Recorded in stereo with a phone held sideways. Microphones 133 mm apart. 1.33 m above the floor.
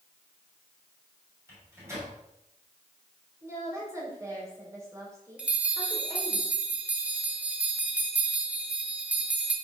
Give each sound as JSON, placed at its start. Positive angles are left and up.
{"t": 1.5, "sound": "a microwave", "side_deg": -20, "distance_m": 6.0}
{"t": 3.4, "sound": "a woman speaking", "side_deg": -20, "distance_m": 6.0}
{"t": 5.4, "sound": "a bell", "side_deg": -10, "distance_m": 1.5}